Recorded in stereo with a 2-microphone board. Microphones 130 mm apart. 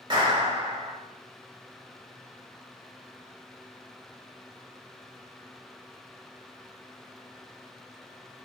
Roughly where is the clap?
Right.